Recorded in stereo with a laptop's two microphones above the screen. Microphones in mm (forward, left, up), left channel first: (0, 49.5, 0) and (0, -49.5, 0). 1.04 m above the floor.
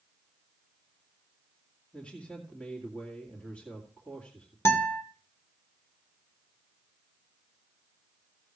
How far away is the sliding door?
I don't hear a sliding door.